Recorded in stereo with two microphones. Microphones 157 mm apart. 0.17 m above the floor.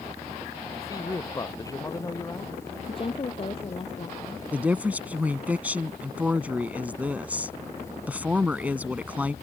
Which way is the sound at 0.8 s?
20° left (ahead or behind).